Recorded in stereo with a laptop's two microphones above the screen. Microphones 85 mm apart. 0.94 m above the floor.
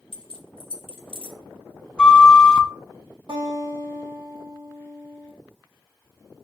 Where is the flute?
10° left (ahead or behind), 0.6 m.